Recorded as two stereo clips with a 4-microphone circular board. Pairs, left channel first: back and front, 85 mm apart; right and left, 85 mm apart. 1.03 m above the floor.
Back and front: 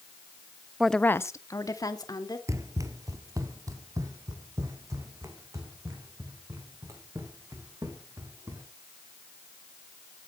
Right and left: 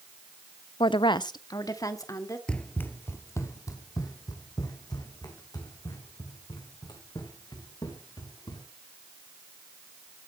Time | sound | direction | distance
0.8 | a woman speaking | 80° right | 0.5 m
2.5 | running footsteps | 20° right | 1.2 m